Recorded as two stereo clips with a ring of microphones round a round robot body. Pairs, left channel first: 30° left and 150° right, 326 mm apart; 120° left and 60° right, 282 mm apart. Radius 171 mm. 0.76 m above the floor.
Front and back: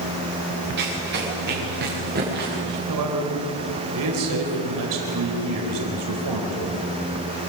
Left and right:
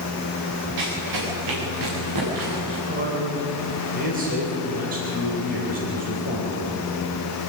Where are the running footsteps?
90° right, 6.5 m; by 2.8 s 85° right, 7.5 m.